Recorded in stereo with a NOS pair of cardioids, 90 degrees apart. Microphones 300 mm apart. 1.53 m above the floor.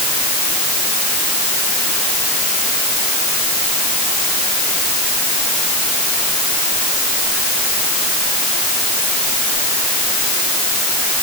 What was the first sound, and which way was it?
Only background noise.